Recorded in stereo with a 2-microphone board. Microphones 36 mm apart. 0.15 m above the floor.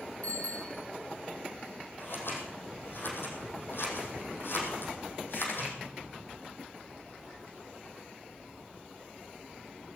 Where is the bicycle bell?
40° left (ahead or behind), 5 m.